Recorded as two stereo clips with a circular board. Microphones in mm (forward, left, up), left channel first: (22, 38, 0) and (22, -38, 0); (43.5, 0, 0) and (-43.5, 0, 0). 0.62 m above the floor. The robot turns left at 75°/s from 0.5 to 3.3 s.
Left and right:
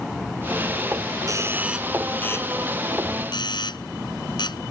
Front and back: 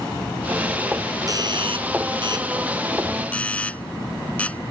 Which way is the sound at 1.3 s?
130° right.